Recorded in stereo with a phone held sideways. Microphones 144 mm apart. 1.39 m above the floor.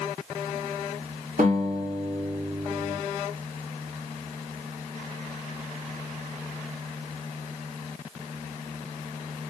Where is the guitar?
75° right (ahead or behind), 2 m.